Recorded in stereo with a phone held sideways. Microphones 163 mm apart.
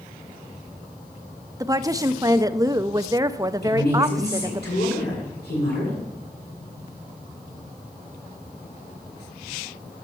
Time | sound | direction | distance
1.6 | a woman speaking | 20° right (ahead or behind) | 0.5 m
3.6 | a woman speaking | 85° left | 7.5 m